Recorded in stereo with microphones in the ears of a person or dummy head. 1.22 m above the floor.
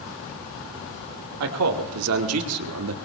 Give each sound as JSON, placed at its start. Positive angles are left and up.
{"t": 1.4, "sound": "a man speaking", "side_deg": -80, "distance_m": 2.5}